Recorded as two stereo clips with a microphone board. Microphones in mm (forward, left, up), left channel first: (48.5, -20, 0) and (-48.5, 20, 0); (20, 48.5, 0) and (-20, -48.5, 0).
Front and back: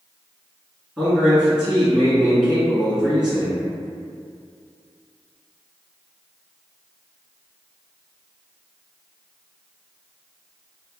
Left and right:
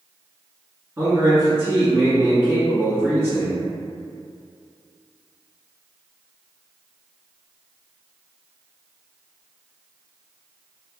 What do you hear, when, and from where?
1.0 s a man speaking: 130° right, 1.2 m